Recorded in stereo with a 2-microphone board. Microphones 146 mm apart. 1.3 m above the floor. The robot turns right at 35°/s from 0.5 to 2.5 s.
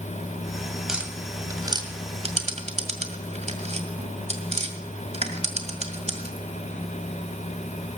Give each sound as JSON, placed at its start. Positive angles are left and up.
{"t": 0.9, "sound": "tapping", "side_deg": -5, "distance_m": 1.9}